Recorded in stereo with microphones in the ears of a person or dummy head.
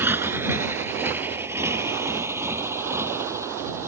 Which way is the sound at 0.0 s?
15° right (ahead or behind).